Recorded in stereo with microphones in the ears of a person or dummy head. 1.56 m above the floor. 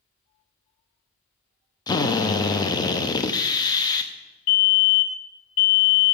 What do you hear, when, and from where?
1.9 s a drill: 20° left (ahead or behind), 0.5 m
4.5 s a fire alarm: 45° left (ahead or behind), 1.8 m